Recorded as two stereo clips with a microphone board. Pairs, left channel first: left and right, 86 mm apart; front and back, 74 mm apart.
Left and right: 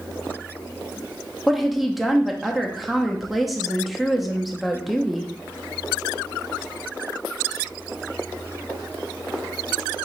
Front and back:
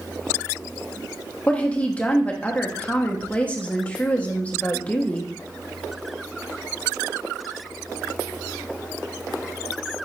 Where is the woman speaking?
5° right, 0.7 m.